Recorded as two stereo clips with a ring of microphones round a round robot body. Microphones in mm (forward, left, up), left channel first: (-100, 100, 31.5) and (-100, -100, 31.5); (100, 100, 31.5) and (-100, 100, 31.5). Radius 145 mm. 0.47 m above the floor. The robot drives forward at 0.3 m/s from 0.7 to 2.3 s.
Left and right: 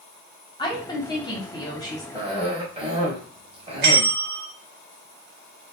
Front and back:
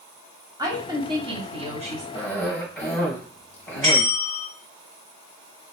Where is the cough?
65° right, 1.0 m; by 4.1 s 70° right, 1.0 m.